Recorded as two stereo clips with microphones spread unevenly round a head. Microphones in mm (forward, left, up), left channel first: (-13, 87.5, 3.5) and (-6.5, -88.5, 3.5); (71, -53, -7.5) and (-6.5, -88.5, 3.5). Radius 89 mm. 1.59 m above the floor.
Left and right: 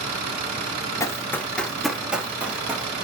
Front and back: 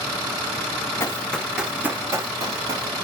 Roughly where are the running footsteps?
Ahead left.